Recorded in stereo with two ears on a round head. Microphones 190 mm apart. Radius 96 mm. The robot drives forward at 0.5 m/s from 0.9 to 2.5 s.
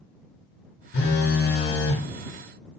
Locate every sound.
0.9 s a phone buzzing: 50° left (ahead or behind), 1.2 m